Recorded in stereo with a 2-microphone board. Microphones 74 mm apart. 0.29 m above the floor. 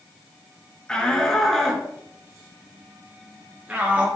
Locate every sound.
0.9 s a shout: 15° left (ahead or behind), 4.5 m; by 4.1 s 20° right (ahead or behind), 5 m